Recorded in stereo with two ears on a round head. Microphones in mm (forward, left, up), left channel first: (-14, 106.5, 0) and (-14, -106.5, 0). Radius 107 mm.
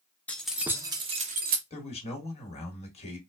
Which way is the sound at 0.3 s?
5° left (ahead or behind).